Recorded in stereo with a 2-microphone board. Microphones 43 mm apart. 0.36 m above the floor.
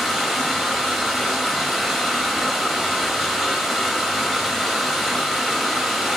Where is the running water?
Centre (ahead or behind), 0.7 m.